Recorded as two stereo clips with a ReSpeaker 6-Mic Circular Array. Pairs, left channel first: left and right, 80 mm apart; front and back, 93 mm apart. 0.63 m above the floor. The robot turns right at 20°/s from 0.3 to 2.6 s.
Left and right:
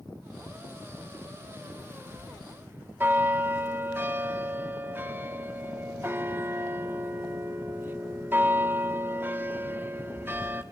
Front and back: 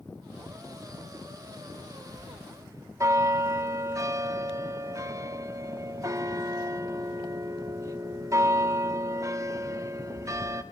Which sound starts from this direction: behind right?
A bell, at 2.1 s.